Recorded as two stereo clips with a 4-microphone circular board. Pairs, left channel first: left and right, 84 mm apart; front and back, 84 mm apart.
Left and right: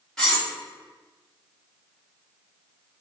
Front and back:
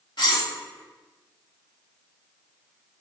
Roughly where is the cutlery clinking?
Ahead.